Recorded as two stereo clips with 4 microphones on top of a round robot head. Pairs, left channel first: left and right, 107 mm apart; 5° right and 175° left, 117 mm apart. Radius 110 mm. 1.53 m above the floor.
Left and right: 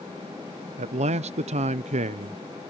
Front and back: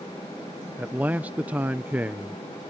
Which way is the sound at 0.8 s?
105° right.